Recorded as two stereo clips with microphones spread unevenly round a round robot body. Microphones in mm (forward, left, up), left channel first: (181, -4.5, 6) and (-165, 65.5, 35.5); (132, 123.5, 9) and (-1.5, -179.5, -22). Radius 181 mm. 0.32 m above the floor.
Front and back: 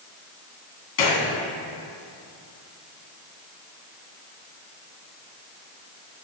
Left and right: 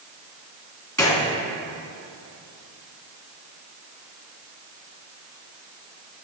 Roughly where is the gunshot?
Ahead.